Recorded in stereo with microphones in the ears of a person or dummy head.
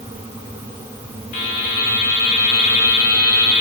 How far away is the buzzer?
About 1.8 m.